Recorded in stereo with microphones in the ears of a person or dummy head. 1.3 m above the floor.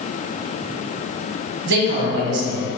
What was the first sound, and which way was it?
A man speaking, 70° right (ahead or behind).